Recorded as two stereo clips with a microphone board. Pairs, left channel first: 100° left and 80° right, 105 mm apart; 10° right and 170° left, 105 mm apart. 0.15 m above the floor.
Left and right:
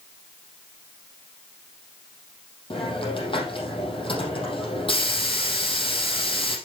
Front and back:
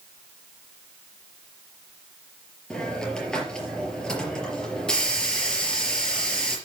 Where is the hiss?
70° left, 4.5 m.